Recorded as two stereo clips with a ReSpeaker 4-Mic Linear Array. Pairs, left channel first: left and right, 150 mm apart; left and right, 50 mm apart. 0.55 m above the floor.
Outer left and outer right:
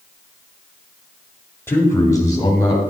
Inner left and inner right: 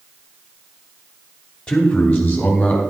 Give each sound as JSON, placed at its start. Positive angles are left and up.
{"t": 1.7, "sound": "a man speaking", "side_deg": 15, "distance_m": 1.8}